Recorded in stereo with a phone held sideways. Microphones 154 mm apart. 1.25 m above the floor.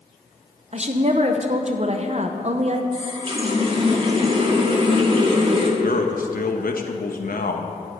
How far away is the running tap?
About 1.9 m.